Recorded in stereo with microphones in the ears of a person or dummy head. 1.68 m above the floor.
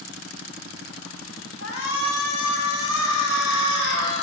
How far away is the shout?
About 3 m.